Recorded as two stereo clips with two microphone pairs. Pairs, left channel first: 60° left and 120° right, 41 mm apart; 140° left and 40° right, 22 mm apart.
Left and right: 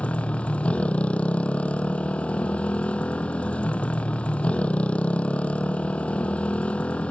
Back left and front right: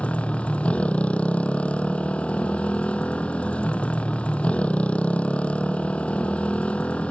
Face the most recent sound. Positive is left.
turn(degrees=120)